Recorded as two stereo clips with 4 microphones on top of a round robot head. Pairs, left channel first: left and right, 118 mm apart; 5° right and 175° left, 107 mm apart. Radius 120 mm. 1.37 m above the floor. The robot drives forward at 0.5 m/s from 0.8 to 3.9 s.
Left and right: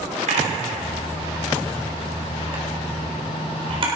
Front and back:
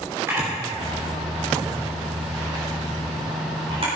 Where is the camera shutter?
115° right, 3 m; by 3.9 s 135° right, 4 m.